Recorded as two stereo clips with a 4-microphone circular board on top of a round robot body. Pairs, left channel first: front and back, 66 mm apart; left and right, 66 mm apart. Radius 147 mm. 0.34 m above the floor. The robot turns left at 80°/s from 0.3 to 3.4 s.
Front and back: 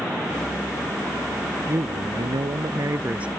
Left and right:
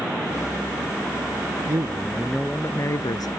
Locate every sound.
1.7 s a man speaking: 130° right; by 3.3 s 100° left